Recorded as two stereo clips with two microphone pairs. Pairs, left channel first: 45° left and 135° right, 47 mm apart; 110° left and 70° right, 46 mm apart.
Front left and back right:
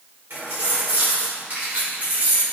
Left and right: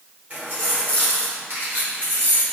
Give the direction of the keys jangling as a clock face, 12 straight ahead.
4 o'clock.